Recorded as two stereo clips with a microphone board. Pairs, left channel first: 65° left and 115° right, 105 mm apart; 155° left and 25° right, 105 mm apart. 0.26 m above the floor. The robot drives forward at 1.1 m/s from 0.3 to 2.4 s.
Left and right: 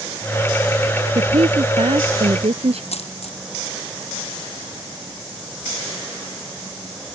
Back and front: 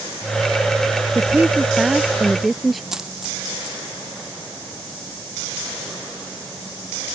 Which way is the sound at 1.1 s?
95° right.